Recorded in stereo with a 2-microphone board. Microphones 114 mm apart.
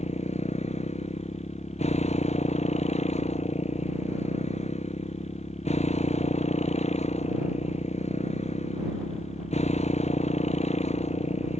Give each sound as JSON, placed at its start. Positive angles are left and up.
{"t": 0.0, "sound": "a motorcycle", "side_deg": 75}